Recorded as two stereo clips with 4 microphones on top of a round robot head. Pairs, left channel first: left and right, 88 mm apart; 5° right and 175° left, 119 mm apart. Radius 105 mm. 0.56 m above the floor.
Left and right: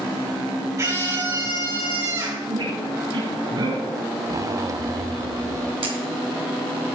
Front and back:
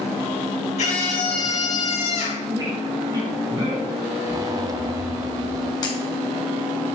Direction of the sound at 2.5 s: 120° right.